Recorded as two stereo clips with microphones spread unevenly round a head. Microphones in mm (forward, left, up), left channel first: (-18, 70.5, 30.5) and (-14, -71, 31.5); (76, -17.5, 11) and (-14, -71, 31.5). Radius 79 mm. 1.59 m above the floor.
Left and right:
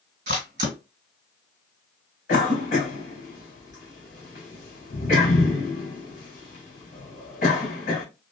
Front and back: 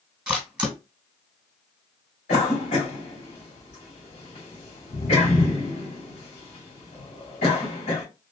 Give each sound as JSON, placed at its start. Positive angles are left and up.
{"t": 0.3, "sound": "a camera shutter", "azimuth_deg": -90, "distance_m": 1.7}
{"t": 2.3, "sound": "a cough", "azimuth_deg": 50, "distance_m": 2.5}